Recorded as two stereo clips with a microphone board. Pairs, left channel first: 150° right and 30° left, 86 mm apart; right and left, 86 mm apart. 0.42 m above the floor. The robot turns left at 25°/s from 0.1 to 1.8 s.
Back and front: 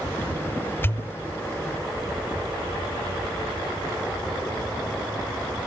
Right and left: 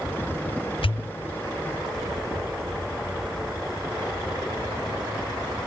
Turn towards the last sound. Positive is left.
turn(degrees=-110)